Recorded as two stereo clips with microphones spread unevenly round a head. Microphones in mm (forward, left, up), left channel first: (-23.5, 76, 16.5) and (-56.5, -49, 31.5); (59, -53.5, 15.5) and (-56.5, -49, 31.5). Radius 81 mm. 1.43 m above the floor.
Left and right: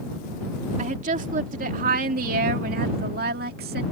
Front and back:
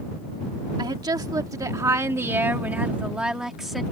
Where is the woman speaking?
130° right; by 3.8 s 95° right.